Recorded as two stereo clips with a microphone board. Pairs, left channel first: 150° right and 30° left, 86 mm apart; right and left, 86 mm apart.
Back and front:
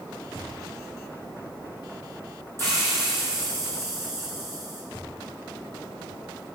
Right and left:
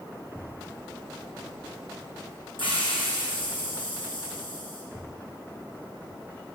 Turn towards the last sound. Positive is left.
turn(degrees=-90)